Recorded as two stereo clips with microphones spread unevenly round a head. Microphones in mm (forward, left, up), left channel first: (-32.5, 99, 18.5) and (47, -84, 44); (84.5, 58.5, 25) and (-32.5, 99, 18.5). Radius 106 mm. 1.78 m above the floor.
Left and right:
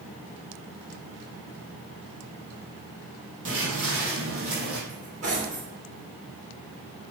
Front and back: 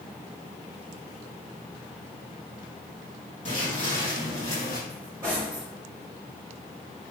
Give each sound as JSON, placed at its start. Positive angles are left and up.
{"t": 3.5, "sound": "footsteps", "azimuth_deg": -70, "distance_m": 3.5}
{"t": 4.9, "sound": "cutlery clinking", "azimuth_deg": -120, "distance_m": 3.0}